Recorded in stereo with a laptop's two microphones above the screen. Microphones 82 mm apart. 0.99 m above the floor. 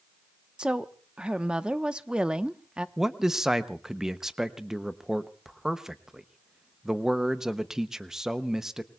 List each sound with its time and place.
0.6 s a woman speaking: 10° right (ahead or behind), 0.9 m
3.0 s a man speaking: 5° right (ahead or behind), 0.7 m